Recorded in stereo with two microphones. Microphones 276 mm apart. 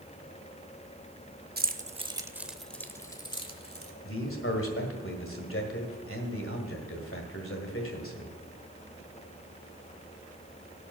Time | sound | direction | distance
1.6 | keys jangling | 35° right (ahead or behind) | 0.6 m
4.0 | a man speaking | 50° left (ahead or behind) | 1.6 m